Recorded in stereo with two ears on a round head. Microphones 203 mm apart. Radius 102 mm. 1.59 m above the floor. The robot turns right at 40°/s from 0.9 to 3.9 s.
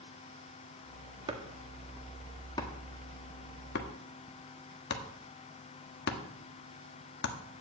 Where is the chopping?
25° right (ahead or behind), 1.4 m; by 7.3 s 50° left (ahead or behind), 1.4 m.